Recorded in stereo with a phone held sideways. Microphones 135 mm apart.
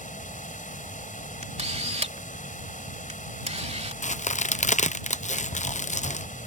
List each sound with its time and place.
0.0 s running water: 75° left (ahead or behind)
1.4 s a camera shutter: 55° right (ahead or behind)
4.0 s a crack: 65° left (ahead or behind)